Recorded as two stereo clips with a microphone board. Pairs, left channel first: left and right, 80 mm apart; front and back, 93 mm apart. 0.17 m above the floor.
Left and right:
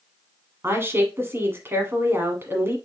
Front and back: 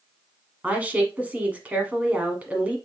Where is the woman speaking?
115° right, 1.2 m.